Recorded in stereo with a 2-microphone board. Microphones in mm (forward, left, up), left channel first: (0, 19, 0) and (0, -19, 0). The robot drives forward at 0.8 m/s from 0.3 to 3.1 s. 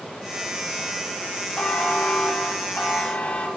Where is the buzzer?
35° left (ahead or behind), 2.5 m; by 3.5 s 25° left (ahead or behind), 3.5 m.